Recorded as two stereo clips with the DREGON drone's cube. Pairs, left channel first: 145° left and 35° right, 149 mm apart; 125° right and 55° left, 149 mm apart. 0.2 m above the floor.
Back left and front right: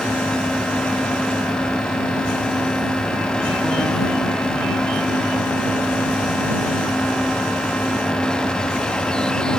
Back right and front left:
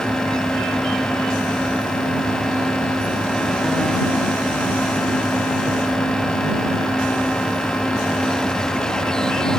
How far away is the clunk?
I don't hear a clunk.